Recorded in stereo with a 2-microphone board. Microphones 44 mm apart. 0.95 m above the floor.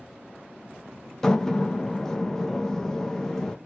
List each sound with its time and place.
1.2 s a door slam: 10° left (ahead or behind), 0.6 m